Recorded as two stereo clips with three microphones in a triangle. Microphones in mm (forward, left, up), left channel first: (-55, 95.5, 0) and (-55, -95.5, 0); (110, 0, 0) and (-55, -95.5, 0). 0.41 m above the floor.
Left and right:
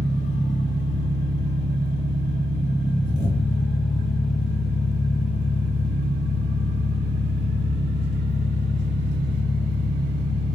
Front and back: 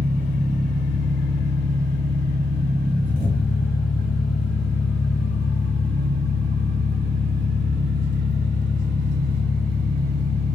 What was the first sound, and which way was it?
An engine running, 75° left.